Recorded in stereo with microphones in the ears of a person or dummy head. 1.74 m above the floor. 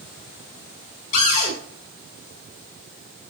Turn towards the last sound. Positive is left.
turn(degrees=45)  # may be behind; listen again after turning